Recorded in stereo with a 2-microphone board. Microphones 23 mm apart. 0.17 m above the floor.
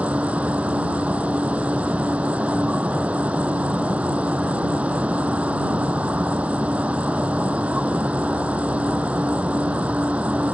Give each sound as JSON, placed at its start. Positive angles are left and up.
{"t": 0.0, "sound": "an insect", "side_deg": -75}